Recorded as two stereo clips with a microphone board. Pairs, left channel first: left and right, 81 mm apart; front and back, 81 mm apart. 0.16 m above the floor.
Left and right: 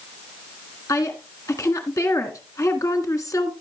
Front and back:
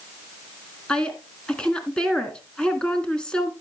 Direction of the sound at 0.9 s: 75° left.